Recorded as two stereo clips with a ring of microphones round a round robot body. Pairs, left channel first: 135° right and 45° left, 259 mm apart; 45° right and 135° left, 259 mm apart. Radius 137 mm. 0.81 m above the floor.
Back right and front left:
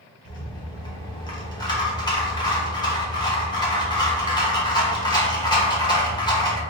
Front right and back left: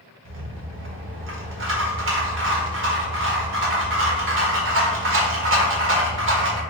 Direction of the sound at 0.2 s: 155° left.